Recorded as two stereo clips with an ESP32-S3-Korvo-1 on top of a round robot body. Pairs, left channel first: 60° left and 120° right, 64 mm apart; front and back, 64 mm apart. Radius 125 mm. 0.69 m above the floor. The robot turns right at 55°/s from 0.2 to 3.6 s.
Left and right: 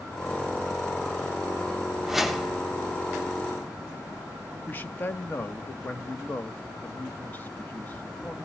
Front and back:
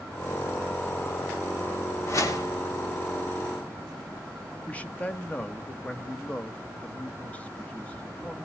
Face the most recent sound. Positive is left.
turn(degrees=45)